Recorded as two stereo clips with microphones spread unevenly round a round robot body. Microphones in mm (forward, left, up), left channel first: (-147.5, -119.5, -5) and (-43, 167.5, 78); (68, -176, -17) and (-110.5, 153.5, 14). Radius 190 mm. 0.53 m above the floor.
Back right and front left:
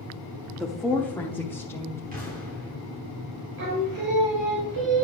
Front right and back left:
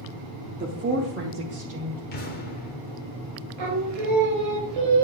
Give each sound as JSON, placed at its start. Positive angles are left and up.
{"t": 0.6, "sound": "a woman speaking", "azimuth_deg": 180, "distance_m": 0.8}
{"t": 2.1, "sound": "an explosion", "azimuth_deg": 0, "distance_m": 1.2}
{"t": 3.6, "sound": "singing", "azimuth_deg": 90, "distance_m": 3.0}